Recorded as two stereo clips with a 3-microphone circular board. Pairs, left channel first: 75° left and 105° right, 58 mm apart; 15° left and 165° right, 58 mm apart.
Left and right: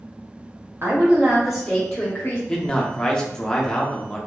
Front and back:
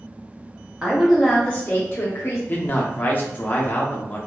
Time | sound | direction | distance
0.8 | a woman speaking | 105° right | 0.8 m
2.5 | a man speaking | 15° left | 0.6 m